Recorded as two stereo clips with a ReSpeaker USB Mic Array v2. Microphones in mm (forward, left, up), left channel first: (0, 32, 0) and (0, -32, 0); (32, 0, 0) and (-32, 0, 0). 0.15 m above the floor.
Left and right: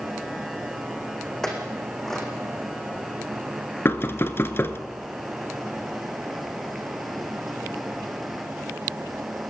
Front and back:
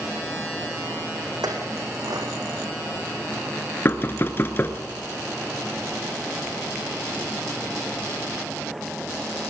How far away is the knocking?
About 1.3 m.